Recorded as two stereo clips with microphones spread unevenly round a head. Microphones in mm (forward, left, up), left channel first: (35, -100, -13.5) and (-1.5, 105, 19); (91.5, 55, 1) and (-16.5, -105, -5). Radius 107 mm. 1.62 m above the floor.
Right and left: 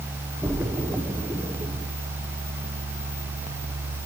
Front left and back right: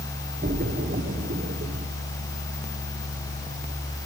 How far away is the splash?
About 1.0 m.